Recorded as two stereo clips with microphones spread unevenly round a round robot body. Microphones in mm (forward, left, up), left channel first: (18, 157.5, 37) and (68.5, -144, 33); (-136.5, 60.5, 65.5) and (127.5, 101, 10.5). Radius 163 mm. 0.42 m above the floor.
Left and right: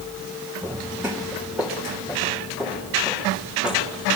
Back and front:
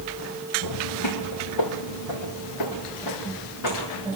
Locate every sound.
0.6 s footsteps: 165° right, 1.5 m; by 4.2 s 170° right, 5 m